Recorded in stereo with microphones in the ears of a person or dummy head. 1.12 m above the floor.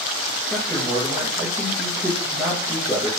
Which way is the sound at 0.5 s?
5° right (ahead or behind).